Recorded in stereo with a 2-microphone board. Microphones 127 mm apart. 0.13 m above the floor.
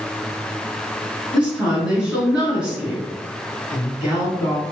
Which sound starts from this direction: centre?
A woman speaking, at 1.3 s.